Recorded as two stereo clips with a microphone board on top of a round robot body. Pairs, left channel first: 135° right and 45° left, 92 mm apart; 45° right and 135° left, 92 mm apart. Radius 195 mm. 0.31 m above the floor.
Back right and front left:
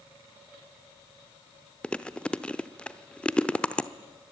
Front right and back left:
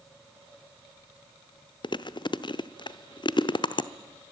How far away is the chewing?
About 1.0 m.